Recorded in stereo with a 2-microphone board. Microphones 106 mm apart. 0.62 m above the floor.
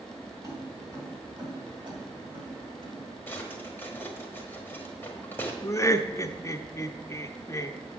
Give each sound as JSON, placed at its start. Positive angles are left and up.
{"t": 0.4, "sound": "keys jangling", "side_deg": -30, "distance_m": 3.0}
{"t": 3.3, "sound": "a drawer", "side_deg": 15, "distance_m": 1.4}
{"t": 5.6, "sound": "laughter", "side_deg": 25, "distance_m": 0.7}